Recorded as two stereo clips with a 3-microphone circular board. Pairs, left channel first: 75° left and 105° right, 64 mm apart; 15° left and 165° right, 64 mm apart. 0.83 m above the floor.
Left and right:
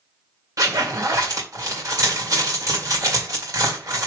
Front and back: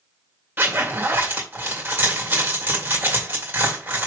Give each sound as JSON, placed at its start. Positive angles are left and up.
{"t": 0.6, "sound": "a zipper", "azimuth_deg": -110, "distance_m": 2.0}